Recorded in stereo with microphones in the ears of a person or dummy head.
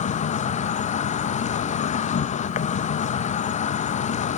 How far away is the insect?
About 0.7 m.